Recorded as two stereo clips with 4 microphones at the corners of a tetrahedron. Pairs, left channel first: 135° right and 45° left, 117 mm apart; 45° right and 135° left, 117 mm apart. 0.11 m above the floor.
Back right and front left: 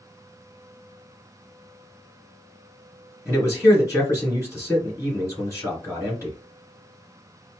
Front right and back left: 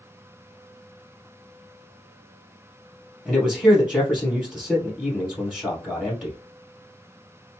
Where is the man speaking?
140° right, 1.8 m.